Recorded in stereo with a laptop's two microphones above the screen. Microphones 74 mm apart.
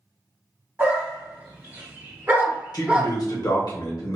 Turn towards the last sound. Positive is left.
turn(degrees=55)  # may be behind; listen again after turning